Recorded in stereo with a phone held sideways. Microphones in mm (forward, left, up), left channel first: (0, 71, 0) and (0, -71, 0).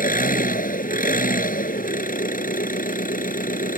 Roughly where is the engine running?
Left.